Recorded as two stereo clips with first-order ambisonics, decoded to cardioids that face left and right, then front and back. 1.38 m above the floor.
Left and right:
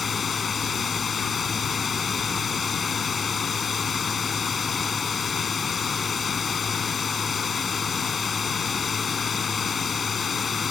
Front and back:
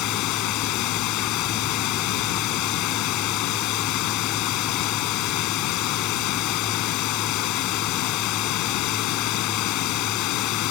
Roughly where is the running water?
Ahead.